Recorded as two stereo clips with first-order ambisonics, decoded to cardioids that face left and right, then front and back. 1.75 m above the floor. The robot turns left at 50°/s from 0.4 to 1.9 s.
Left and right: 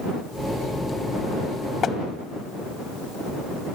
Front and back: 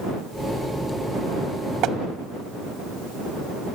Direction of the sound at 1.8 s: 145° left.